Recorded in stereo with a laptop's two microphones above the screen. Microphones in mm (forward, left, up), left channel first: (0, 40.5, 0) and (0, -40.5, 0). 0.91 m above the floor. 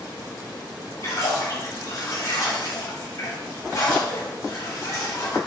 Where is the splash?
40° left (ahead or behind), 2.5 m.